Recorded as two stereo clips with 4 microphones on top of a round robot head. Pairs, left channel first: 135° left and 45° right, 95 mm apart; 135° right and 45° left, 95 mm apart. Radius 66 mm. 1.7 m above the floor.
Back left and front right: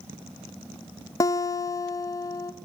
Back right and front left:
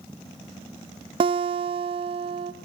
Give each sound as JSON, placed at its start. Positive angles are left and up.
{"t": 1.2, "sound": "a guitar", "azimuth_deg": 80, "distance_m": 0.9}